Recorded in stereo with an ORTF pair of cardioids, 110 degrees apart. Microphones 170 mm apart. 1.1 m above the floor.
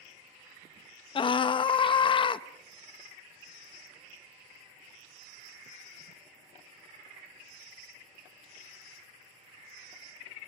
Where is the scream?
30° left, 0.9 m.